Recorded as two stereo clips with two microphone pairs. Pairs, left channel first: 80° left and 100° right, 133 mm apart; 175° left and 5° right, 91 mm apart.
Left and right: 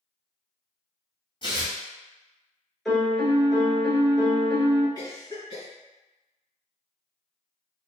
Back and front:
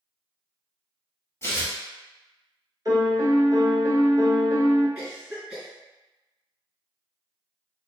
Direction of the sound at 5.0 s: 60° left.